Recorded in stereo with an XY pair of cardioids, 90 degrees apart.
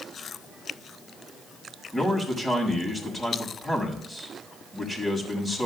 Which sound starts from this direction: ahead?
A man speaking, at 1.9 s.